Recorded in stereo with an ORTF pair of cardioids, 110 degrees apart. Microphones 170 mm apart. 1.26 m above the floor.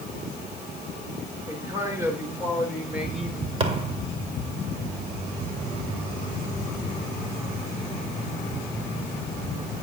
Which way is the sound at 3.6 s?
35° right.